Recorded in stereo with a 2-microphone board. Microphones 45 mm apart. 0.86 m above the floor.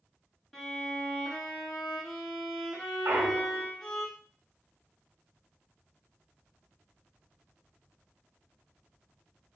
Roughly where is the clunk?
Right.